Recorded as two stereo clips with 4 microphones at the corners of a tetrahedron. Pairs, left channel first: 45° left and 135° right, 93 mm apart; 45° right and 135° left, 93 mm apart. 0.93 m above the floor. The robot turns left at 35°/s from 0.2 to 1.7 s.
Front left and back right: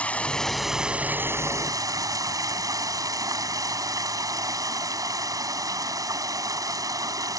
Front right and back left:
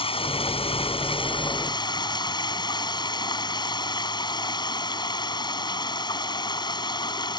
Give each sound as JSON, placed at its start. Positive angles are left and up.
{"t": 0.0, "sound": "running water", "azimuth_deg": -30}